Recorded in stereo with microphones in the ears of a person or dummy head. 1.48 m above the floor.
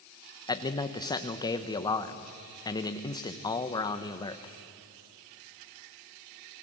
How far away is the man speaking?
About 1.0 m.